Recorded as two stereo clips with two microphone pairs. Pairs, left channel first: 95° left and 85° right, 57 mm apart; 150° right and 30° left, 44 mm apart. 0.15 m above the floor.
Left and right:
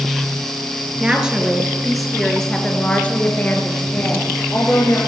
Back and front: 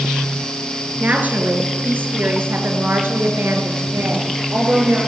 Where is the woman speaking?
15° right, 3 m; by 5.0 s 60° left, 4 m.